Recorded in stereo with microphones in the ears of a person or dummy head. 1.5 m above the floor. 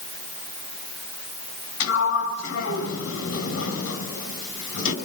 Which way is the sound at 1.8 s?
70° left (ahead or behind).